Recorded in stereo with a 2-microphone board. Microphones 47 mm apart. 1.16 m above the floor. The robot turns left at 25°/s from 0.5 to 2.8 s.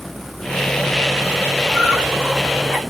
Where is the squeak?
30° right (ahead or behind), 1.0 m; by 2.8 s 5° right (ahead or behind), 1.0 m.